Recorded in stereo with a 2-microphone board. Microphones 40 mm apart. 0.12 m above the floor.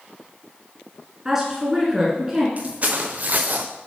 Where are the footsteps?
35° right (ahead or behind), 1.5 m; by 3.7 s 50° right (ahead or behind), 0.8 m.